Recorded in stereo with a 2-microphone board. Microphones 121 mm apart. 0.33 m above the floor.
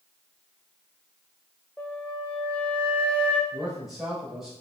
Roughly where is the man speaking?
Centre.